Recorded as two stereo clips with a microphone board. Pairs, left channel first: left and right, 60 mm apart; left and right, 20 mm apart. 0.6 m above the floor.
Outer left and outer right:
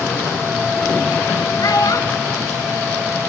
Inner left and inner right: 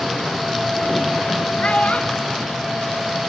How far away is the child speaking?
About 1.8 m.